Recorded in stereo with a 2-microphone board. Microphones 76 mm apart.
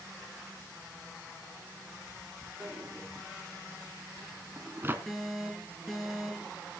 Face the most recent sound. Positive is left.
turn(degrees=0)  # may be behind; listen again after turning